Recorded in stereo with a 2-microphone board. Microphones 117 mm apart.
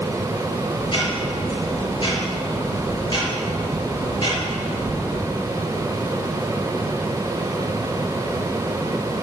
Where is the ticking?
40° left (ahead or behind), 5.5 m.